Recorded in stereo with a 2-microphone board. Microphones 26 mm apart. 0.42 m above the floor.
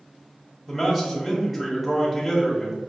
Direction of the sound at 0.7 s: 5° left (ahead or behind).